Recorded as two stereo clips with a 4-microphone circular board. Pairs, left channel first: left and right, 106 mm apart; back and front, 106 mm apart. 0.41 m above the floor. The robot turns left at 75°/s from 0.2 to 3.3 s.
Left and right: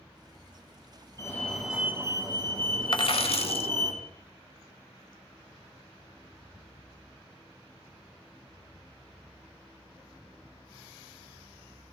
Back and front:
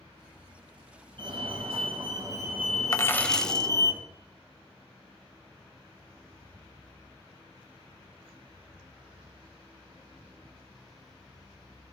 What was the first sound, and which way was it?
A fire alarm, 35° left.